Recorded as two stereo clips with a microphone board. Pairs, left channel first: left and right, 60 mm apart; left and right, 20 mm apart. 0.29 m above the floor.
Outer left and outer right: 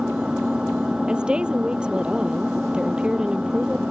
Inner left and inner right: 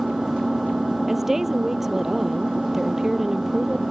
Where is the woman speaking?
15° right (ahead or behind).